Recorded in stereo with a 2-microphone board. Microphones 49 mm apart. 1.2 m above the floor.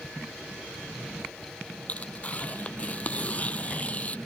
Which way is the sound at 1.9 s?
30° left (ahead or behind).